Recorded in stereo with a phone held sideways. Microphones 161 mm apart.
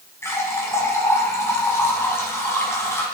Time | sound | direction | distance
0.2 | a running tap | 15° left (ahead or behind) | 4.5 m